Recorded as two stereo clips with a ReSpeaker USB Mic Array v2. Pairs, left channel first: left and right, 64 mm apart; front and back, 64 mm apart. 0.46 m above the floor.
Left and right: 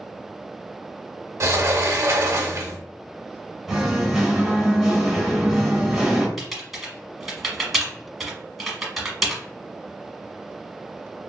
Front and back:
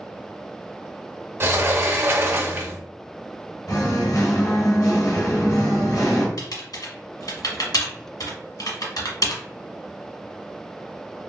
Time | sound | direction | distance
1.4 | a sliding door | 130° right | 0.5 m
3.7 | singing | straight ahead | 1.0 m
6.4 | typing on a keyboard | straight ahead | 1.1 m